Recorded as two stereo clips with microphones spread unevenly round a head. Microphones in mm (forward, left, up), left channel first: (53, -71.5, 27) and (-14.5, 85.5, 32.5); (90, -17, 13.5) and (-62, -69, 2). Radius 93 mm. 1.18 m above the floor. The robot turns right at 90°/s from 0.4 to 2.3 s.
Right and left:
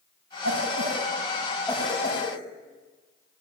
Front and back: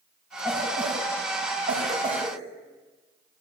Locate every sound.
0.4 s a cough: 110° left, 7 m; by 2.4 s 80° right, 7 m